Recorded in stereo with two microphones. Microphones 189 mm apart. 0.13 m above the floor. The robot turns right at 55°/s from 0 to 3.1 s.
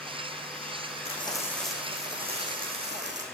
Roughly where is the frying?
Behind left.